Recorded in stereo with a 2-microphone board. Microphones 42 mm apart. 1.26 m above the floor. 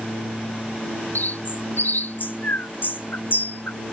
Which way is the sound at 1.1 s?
55° left (ahead or behind).